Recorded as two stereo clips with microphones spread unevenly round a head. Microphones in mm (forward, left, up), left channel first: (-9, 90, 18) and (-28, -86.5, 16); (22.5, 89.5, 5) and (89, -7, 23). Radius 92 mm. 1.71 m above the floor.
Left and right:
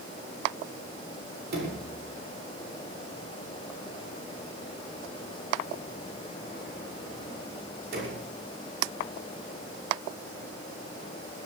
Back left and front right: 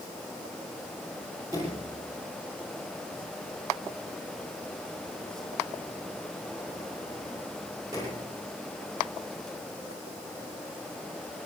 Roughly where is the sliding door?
Behind right.